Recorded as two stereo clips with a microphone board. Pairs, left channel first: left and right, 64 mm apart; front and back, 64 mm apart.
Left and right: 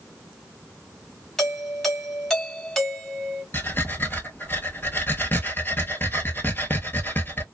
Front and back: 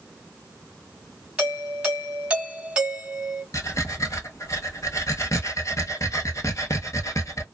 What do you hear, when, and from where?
1.4 s a doorbell: 155° left, 1.4 m
3.5 s breathing: 35° left, 0.8 m